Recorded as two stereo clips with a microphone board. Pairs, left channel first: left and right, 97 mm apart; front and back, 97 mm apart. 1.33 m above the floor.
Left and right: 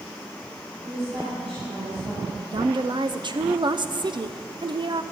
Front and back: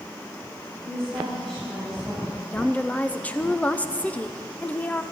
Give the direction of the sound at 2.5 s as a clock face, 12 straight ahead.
2 o'clock.